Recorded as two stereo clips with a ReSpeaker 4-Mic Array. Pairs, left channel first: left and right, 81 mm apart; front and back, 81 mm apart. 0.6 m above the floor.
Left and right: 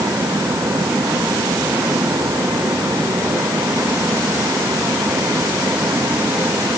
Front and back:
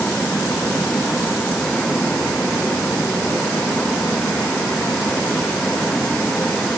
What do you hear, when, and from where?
Only background noise.